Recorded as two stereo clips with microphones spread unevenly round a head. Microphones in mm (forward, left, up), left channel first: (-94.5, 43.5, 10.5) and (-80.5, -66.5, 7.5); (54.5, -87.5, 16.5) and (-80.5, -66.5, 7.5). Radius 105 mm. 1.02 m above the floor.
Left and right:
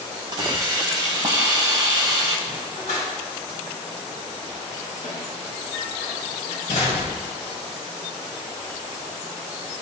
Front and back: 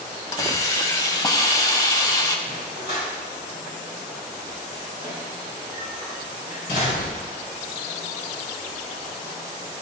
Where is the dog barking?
40° left, 4 m.